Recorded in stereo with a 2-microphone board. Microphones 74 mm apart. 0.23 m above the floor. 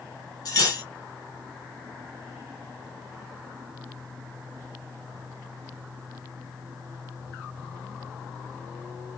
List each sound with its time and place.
0.5 s cutlery clinking: 55° left (ahead or behind), 1.6 m